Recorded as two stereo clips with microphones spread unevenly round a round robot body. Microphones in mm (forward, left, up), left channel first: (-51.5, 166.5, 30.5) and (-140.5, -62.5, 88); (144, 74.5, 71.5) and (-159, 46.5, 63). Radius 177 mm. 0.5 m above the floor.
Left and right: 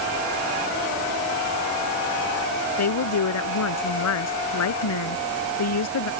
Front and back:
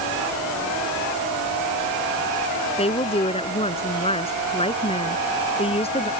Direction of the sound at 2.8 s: 75° left.